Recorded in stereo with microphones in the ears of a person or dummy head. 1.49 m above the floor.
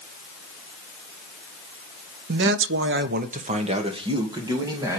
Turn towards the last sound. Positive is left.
turn(degrees=-20)  # may be behind; listen again after turning